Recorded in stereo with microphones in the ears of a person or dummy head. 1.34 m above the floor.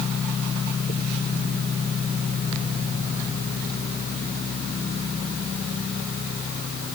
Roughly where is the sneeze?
I don't hear a sneeze.